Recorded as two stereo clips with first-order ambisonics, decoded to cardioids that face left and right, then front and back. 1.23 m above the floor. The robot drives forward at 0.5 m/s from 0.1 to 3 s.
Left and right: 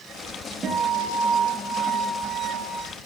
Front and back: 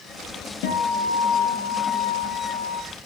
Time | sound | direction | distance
0.6 | a guitar | 15° right | 7 m